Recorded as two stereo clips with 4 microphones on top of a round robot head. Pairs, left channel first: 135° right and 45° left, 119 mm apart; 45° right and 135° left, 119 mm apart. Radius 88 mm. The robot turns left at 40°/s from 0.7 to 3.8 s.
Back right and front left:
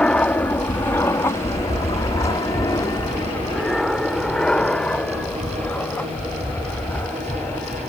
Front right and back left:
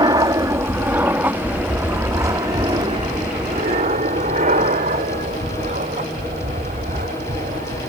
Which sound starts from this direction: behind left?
An aircraft, at 0.0 s.